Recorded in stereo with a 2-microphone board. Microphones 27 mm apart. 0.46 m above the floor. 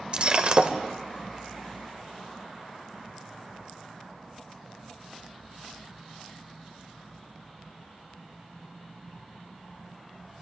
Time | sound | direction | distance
0.1 | breaking glass | 40° right (ahead or behind) | 1.0 m